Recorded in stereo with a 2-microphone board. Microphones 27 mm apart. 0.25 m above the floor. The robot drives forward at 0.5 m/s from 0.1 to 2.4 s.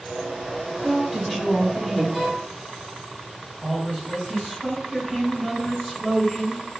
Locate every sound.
0.8 s a woman speaking: 20° left (ahead or behind), 1.3 m; by 2.0 s 15° left (ahead or behind), 1.5 m
2.1 s a violin: 5° left (ahead or behind), 1.8 m
3.6 s a man speaking: 10° left (ahead or behind), 1.4 m